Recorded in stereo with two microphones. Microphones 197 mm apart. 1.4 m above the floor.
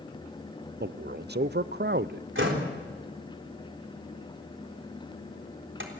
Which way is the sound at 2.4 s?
80° right.